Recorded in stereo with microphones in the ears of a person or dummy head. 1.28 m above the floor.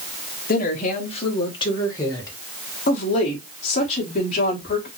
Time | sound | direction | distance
0.5 | a woman speaking | 40° left (ahead or behind) | 0.9 m
2.9 | a woman speaking | 35° left (ahead or behind) | 1.2 m